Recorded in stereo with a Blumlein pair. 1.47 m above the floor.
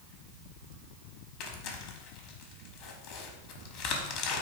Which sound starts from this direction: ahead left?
Tearing paper, at 1.4 s.